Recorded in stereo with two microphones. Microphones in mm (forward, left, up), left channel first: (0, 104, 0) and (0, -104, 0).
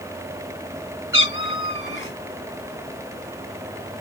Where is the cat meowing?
65° left (ahead or behind), 2.5 m.